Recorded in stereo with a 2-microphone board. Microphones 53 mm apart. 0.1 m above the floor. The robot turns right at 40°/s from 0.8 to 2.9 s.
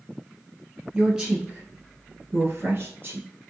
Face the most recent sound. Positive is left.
turn(degrees=-40)  # may be behind; listen again after turning